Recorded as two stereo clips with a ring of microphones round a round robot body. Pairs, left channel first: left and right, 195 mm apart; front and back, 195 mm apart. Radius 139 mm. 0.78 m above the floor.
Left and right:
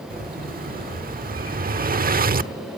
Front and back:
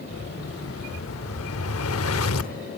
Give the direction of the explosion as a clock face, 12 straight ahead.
1 o'clock.